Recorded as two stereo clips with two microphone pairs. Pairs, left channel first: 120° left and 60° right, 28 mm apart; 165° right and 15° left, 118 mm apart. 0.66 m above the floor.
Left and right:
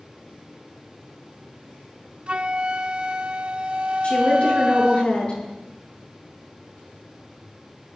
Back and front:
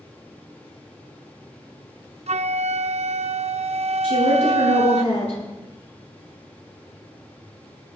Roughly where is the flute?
Ahead.